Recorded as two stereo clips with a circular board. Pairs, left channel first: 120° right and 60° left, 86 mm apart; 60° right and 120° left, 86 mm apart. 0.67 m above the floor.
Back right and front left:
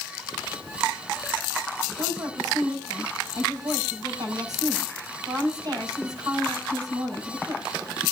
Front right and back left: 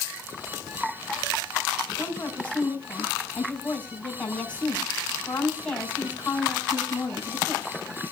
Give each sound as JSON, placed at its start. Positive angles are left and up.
{"t": 2.0, "sound": "a woman speaking", "azimuth_deg": 15, "distance_m": 6.0}